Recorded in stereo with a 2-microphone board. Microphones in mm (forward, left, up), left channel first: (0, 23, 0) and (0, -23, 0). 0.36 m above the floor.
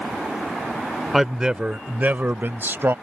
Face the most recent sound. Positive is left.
turn(degrees=-60)  # may be behind; listen again after turning